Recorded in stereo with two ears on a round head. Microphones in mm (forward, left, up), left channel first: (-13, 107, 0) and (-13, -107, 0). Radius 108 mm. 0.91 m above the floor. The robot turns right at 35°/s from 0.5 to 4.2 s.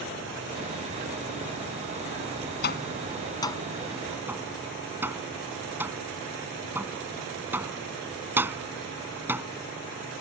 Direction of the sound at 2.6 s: 45° left (ahead or behind).